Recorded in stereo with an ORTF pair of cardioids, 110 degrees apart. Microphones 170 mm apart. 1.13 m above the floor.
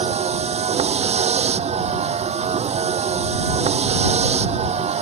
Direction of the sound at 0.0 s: 40° right.